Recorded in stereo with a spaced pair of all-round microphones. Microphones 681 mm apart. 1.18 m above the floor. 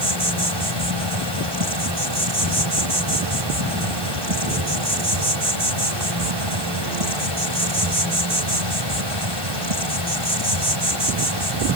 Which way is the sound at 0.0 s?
40° right (ahead or behind).